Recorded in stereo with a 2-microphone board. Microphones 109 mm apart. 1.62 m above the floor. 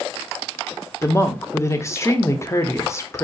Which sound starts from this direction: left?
A woman speaking, at 1.0 s.